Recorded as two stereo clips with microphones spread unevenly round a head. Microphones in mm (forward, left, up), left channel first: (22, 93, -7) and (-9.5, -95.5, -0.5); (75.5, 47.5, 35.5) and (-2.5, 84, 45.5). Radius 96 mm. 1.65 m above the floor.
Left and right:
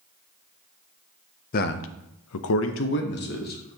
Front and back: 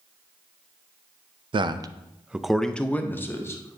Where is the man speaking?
130° left, 0.5 m; by 3.8 s 35° left, 1.1 m.